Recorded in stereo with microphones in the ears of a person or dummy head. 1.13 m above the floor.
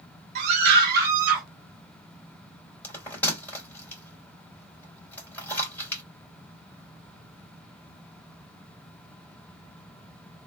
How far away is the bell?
About 2 m.